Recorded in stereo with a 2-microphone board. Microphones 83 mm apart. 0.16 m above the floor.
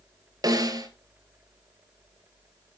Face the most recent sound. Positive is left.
turn(degrees=-50)  # may be behind; listen again after turning